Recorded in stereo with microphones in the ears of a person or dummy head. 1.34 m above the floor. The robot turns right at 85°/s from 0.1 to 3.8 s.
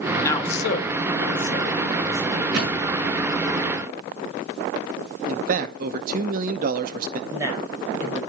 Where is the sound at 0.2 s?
10° left (ahead or behind), 1.1 m; by 2.4 s 20° right (ahead or behind), 1.1 m.